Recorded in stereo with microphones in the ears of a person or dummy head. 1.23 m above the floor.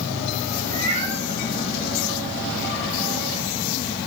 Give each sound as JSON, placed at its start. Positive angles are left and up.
{"t": 0.7, "sound": "a cat meowing", "side_deg": -30, "distance_m": 9.0}